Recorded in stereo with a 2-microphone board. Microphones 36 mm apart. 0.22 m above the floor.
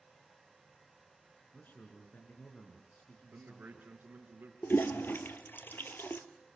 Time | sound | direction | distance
1.5 | a man speaking | 60° left (ahead or behind) | 3.5 m
3.3 | a man speaking | 65° right (ahead or behind) | 4 m
4.6 | a toilet flushing | 75° left (ahead or behind) | 1.3 m